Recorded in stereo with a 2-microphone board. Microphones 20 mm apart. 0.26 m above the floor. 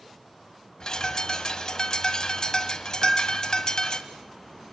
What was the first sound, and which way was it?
A bird, 35° left (ahead or behind).